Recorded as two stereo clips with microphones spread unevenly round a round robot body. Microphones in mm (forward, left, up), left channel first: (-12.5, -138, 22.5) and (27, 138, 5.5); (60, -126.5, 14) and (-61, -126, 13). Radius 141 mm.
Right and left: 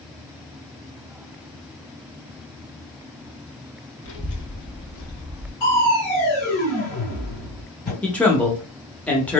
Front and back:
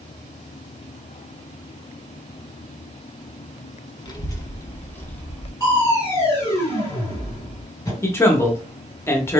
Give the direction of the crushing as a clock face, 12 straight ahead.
2 o'clock.